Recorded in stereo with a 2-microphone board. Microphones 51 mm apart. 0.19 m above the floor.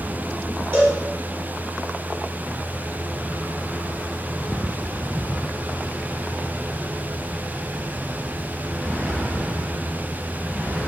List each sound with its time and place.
0.7 s a cowbell: 45° right (ahead or behind), 1.2 m